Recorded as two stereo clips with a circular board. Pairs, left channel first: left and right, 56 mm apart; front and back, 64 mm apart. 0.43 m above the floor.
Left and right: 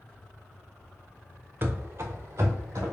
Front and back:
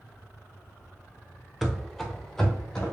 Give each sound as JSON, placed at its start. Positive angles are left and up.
{"t": 1.6, "sound": "running footsteps", "azimuth_deg": -90, "distance_m": 0.5}